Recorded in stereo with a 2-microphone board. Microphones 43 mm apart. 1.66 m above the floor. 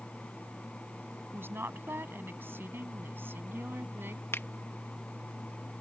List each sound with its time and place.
1.3 s a woman speaking: 60° right (ahead or behind); by 4.2 s 55° right (ahead or behind)
4.3 s a finger snap: 80° left